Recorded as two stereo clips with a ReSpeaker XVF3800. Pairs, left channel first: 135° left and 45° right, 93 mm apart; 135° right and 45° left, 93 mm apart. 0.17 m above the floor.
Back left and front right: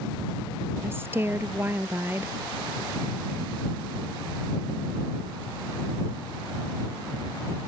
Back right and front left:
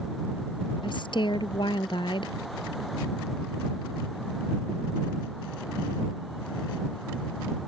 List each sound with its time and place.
0.8 s a woman speaking: 110° right